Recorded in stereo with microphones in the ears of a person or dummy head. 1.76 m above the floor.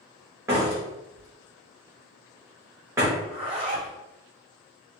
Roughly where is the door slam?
Centre.